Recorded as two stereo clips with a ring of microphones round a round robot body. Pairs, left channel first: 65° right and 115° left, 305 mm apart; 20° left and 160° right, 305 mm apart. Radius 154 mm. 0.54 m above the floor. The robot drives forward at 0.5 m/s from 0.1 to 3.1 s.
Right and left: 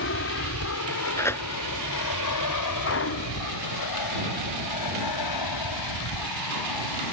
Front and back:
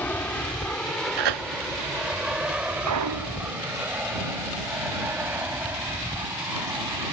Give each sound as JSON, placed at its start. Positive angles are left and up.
{"t": 0.0, "sound": "an aircraft", "azimuth_deg": -60}
{"t": 1.2, "sound": "tearing paper", "azimuth_deg": -150}
{"t": 2.9, "sound": "a clunk", "azimuth_deg": -120}